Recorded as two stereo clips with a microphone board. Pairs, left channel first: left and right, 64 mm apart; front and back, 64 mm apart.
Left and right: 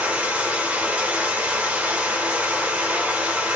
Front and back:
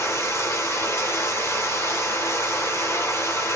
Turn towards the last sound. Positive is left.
turn(degrees=-30)